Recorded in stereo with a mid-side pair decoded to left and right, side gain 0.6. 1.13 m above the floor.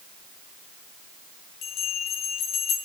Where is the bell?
60° left, 4.5 m.